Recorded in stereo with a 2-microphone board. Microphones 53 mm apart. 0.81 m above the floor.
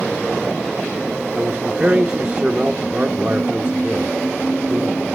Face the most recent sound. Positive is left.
turn(degrees=-30)  # may be behind; listen again after turning